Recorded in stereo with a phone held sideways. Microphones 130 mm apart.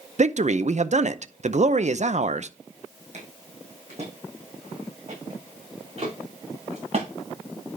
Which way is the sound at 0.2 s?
60° right (ahead or behind).